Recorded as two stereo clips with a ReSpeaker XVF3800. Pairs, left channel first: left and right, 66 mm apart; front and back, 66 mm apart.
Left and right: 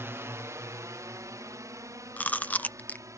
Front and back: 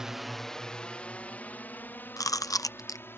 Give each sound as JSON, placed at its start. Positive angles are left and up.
{"t": 0.0, "sound": "a drone", "azimuth_deg": -105}
{"t": 2.2, "sound": "chewing", "azimuth_deg": 25}